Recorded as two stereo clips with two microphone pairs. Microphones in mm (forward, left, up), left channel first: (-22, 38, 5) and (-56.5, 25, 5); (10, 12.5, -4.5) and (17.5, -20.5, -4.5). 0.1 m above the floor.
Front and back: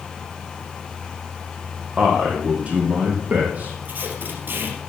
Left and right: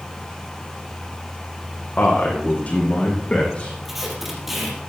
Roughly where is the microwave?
No microwave in this recording.